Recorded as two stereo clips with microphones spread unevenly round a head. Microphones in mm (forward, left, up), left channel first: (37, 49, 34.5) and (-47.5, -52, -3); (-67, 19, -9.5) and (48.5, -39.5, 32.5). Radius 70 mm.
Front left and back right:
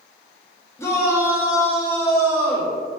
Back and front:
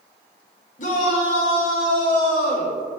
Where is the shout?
125° left, 2 m.